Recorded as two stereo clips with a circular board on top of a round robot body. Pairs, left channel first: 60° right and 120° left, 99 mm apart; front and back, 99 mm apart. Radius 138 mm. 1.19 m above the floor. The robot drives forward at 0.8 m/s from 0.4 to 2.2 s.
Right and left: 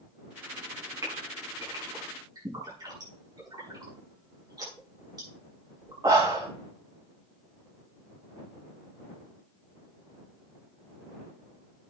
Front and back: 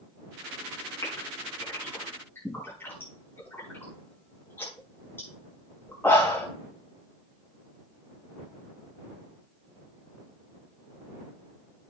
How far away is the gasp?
About 6 m.